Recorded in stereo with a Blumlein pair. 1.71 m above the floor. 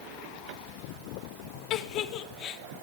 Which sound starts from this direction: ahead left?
A giggle, at 1.7 s.